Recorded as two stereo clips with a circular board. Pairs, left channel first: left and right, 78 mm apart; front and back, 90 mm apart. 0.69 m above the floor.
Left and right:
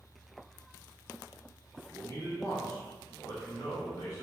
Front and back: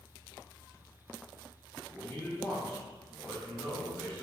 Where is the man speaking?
75° left, 1.7 m.